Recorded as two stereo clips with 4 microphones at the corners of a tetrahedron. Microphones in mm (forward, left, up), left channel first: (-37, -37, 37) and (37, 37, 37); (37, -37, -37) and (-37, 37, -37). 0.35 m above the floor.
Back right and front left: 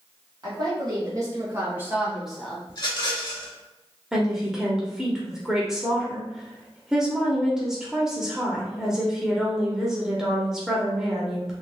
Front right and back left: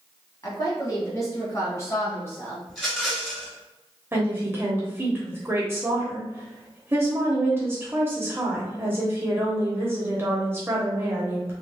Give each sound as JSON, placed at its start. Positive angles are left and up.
{"t": 0.4, "sound": "a woman speaking", "azimuth_deg": 5, "distance_m": 2.0}
{"t": 2.7, "sound": "a rattle", "azimuth_deg": -130, "distance_m": 1.7}
{"t": 4.1, "sound": "a woman speaking", "azimuth_deg": 120, "distance_m": 1.1}